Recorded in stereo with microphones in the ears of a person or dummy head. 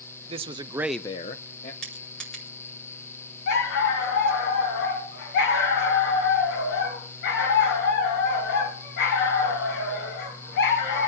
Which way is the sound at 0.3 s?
30° right (ahead or behind).